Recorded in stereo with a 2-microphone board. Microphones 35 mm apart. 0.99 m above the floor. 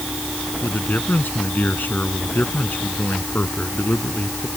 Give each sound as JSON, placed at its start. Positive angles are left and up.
{"t": 0.6, "sound": "a man speaking", "side_deg": 60}